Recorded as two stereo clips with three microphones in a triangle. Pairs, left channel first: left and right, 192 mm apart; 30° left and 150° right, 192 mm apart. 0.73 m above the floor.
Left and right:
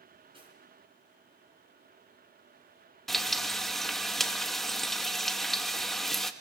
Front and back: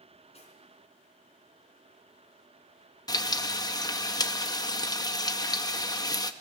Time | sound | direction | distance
0.3 | cutlery clinking | 25° right | 4.5 m
3.1 | frying | 5° left | 0.8 m